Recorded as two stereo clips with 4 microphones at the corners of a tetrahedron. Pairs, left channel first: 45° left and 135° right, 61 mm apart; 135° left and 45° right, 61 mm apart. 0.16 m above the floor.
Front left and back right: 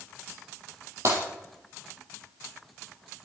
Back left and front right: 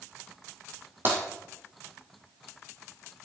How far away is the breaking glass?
About 3.5 m.